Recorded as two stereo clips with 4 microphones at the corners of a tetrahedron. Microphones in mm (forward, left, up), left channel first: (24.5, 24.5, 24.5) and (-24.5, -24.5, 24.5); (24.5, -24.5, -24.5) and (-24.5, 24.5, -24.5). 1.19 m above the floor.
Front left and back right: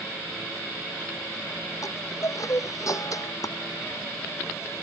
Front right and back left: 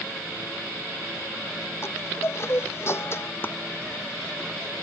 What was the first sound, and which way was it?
A chime, 10° left.